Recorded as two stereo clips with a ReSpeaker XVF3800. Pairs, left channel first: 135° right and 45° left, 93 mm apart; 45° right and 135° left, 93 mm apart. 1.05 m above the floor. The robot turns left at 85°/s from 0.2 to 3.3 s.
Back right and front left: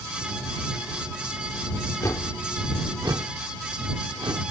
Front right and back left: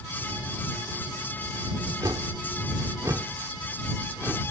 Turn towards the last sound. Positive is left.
turn(degrees=70)